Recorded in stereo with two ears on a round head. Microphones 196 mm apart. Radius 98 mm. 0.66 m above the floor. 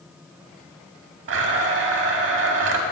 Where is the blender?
60° right (ahead or behind), 0.7 m.